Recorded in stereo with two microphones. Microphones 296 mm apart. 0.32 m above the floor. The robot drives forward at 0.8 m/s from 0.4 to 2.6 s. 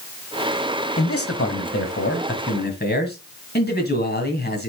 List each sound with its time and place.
1.0 s a man speaking: 50° left (ahead or behind), 1.4 m; by 4.7 s 35° left (ahead or behind), 2 m